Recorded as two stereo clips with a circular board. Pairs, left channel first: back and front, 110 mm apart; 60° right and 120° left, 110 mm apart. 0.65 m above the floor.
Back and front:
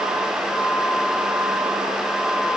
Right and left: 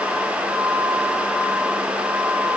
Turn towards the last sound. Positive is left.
No sound to turn to.